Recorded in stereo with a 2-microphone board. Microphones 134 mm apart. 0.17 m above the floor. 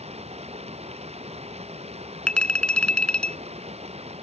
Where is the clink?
10° left (ahead or behind).